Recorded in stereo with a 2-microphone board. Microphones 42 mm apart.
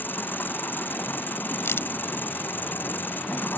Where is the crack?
80° left.